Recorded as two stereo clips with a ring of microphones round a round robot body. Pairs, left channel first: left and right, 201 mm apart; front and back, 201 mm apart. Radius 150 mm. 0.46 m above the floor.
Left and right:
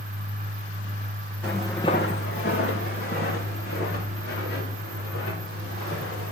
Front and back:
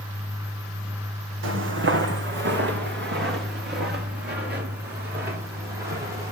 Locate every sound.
1.4 s footsteps: 175° left, 1.3 m; by 6.3 s 145° left, 7.5 m